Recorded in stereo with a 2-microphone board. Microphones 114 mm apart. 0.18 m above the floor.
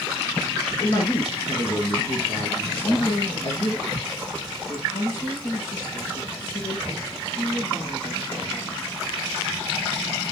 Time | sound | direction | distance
0.8 | a man speaking | 40° left (ahead or behind) | 3 m
2.7 | a woman speaking | 45° left (ahead or behind) | 6.5 m